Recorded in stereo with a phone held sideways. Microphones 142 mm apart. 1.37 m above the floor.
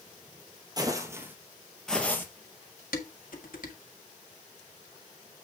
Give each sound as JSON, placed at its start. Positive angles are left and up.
{"t": 0.8, "sound": "footsteps", "side_deg": -30, "distance_m": 1.8}
{"t": 2.9, "sound": "dishes clattering", "side_deg": 75, "distance_m": 1.6}